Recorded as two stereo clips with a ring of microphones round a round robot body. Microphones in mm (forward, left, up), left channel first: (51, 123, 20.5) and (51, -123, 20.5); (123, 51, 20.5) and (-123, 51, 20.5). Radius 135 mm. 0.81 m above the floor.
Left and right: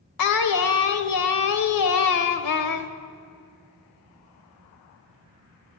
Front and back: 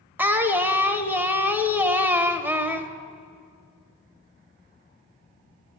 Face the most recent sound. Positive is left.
turn(degrees=100)